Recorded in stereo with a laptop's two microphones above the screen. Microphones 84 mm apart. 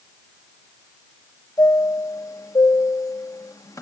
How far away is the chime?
About 0.7 m.